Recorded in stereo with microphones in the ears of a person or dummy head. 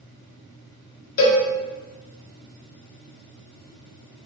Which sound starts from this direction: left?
A cowbell, at 1.2 s.